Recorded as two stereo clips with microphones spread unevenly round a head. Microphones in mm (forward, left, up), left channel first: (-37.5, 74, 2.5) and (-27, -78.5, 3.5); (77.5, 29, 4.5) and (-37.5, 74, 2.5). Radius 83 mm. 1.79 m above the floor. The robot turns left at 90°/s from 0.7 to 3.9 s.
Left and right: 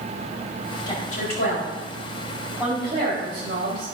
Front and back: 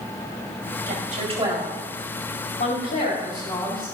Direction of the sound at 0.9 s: 160° left.